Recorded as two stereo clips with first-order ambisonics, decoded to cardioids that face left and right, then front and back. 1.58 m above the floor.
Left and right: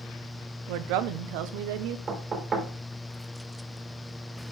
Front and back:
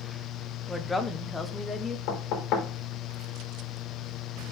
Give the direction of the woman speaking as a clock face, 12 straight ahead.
3 o'clock.